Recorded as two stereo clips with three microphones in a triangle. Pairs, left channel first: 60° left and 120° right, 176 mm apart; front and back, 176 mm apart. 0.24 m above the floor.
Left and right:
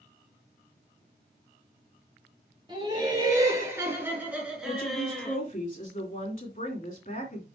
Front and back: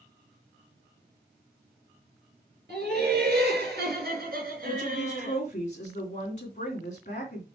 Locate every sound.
2.7 s laughter: straight behind, 4 m; by 5.4 s 145° left, 3 m
4.7 s a woman speaking: 35° left, 2.5 m